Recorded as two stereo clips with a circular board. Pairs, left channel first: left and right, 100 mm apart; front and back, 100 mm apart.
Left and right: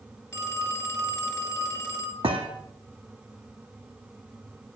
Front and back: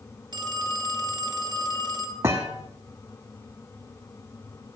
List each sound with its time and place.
0.3 s a phone ringing: 150° left, 1.8 m
2.2 s a thud: 115° right, 2 m